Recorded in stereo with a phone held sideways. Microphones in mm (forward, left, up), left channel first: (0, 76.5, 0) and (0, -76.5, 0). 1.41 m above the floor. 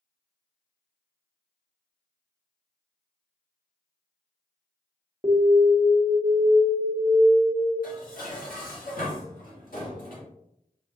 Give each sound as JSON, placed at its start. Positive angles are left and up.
{"t": 5.2, "sound": "an alarm", "side_deg": -25, "distance_m": 1.0}
{"t": 7.8, "sound": "dishes clattering", "side_deg": 70, "distance_m": 1.7}